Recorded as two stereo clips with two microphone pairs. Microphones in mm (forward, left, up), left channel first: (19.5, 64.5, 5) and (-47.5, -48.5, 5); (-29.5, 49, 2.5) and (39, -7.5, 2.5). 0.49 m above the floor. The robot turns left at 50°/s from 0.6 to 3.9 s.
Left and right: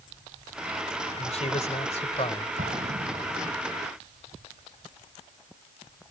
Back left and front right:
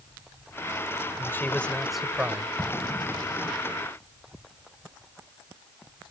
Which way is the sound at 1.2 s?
85° left.